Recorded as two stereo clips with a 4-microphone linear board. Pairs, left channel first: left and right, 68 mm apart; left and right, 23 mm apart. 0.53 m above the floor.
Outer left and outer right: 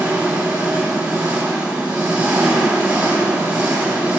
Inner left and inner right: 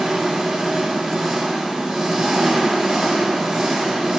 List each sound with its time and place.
0.0 s an engine running: 25° right (ahead or behind), 1.2 m